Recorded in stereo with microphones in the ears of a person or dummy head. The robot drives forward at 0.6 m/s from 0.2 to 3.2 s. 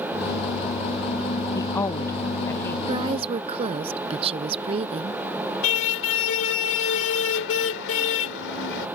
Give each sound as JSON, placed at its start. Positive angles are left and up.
{"t": 1.6, "sound": "a woman speaking", "side_deg": 20}
{"t": 2.9, "sound": "a woman speaking", "side_deg": -25}
{"t": 5.6, "sound": "a car horn", "side_deg": 65}